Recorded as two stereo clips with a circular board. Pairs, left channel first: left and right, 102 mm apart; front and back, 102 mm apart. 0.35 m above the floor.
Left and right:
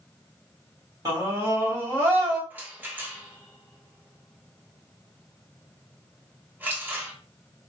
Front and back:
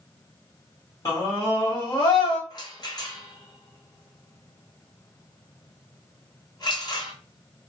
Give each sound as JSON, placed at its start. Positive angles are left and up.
{"t": 1.1, "sound": "a scream", "azimuth_deg": -45, "distance_m": 2.5}
{"t": 2.5, "sound": "a rattle", "azimuth_deg": -20, "distance_m": 1.0}